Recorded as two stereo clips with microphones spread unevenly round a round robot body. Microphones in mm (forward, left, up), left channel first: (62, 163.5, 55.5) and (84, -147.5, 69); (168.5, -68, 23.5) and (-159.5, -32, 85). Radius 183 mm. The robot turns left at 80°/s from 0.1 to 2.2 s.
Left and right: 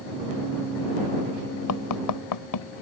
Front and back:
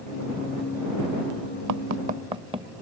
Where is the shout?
I don't hear a shout.